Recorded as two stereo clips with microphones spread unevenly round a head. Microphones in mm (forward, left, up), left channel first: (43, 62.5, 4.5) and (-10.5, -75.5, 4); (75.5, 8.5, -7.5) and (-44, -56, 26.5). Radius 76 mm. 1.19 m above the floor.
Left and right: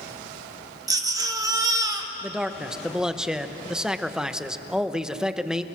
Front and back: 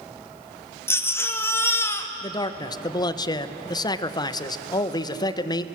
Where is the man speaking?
25° right, 1.0 m.